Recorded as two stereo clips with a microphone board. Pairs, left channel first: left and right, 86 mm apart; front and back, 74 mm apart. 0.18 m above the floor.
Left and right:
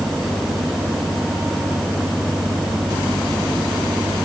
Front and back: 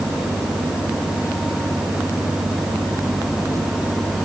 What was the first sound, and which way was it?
Only background noise.